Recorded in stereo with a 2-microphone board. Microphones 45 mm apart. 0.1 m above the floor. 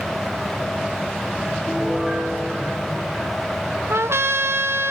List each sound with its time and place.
1.7 s a piano: 10° right (ahead or behind), 7.5 m
3.9 s a trumpet: 70° right (ahead or behind), 0.6 m